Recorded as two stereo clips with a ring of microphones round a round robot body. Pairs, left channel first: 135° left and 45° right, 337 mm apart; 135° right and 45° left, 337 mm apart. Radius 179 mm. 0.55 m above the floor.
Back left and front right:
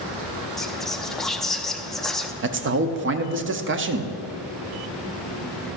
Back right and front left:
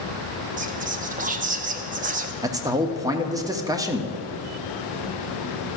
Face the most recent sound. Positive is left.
turn(degrees=-25)